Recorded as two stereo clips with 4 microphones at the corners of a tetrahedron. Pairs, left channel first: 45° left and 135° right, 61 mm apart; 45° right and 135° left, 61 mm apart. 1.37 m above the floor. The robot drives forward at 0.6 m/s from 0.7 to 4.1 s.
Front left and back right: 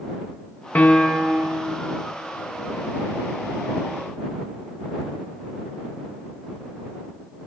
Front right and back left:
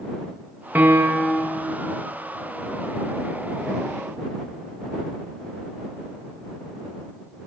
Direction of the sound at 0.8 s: 90° left.